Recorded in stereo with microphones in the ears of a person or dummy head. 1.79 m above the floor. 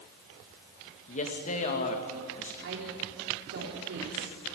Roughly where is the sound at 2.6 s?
Right.